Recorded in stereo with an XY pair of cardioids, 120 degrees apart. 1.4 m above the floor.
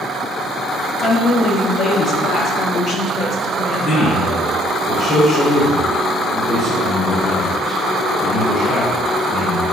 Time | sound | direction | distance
1.0 | a woman speaking | 50° left | 0.9 m
3.8 | a man speaking | 25° left | 1.2 m